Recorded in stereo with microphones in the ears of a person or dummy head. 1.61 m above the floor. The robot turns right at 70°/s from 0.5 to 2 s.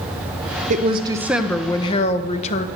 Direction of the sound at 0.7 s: 50° right.